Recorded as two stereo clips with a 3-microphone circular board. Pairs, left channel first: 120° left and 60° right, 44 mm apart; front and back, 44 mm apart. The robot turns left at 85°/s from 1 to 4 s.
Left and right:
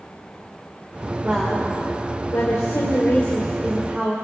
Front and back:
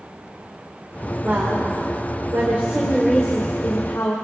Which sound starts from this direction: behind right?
A woman speaking, at 1.2 s.